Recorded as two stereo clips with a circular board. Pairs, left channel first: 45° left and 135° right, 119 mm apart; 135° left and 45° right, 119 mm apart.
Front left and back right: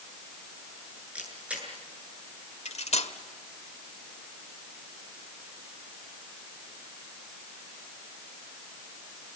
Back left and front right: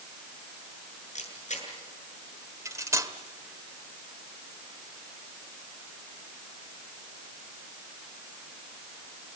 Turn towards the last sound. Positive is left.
turn(degrees=20)